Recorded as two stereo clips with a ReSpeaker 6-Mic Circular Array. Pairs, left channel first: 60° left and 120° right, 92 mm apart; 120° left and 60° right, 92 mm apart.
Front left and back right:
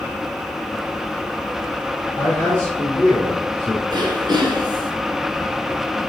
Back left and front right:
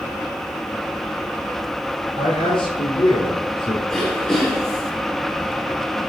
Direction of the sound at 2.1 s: 125° left.